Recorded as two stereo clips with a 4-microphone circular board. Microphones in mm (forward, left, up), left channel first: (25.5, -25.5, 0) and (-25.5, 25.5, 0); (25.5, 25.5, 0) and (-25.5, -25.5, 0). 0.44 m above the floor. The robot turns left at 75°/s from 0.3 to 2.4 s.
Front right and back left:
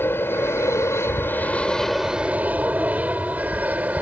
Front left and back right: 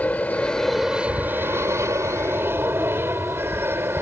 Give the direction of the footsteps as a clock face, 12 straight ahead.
No footsteps in this recording.